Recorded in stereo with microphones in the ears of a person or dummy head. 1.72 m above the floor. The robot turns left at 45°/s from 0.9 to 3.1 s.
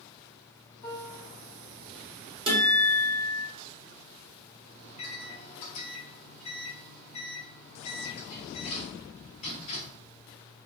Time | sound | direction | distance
0.8 | a piano | 5° left (ahead or behind) | 1.9 m
2.5 | a guitar | 25° right (ahead or behind) | 1.3 m
4.8 | a microwave | 40° left (ahead or behind) | 0.9 m